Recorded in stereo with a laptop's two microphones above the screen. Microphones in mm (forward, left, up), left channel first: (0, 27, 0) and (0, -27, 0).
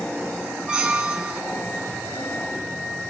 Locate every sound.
0.7 s a squeak: 15° right (ahead or behind), 4 m